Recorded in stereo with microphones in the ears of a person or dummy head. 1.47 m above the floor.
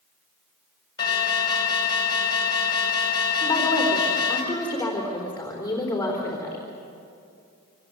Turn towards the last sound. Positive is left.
turn(degrees=10)  # may be behind; listen again after turning